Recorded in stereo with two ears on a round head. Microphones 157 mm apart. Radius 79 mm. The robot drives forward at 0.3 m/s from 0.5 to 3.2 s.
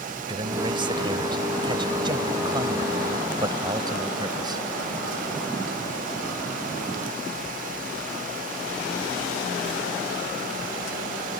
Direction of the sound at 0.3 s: 30° right (ahead or behind).